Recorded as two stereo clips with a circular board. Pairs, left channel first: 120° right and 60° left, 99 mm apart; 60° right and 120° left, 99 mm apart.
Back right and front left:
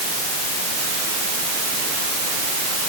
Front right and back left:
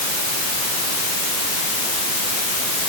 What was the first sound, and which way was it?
Only background noise.